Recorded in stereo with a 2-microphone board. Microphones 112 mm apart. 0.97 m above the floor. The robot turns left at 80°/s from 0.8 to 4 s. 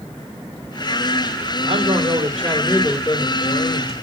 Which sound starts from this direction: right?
A man speaking, at 1.6 s.